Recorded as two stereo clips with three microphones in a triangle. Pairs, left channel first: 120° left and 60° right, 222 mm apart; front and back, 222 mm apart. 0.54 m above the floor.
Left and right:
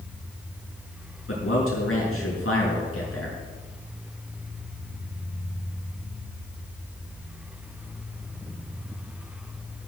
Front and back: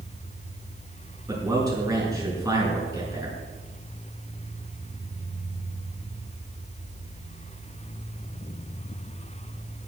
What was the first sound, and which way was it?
A man speaking, 105° left.